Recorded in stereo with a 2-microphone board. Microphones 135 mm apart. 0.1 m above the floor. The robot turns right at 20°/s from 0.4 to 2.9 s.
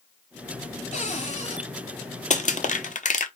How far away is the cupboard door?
About 2 m.